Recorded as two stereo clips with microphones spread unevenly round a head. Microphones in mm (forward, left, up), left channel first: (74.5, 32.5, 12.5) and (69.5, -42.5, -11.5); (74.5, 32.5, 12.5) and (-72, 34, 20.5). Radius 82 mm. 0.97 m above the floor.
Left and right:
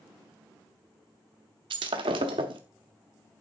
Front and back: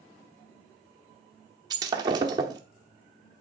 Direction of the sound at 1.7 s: 120° right.